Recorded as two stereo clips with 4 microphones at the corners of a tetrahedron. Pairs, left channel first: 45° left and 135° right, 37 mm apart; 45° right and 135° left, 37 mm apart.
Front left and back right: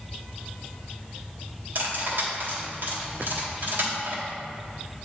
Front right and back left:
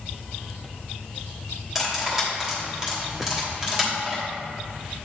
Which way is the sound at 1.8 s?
145° right.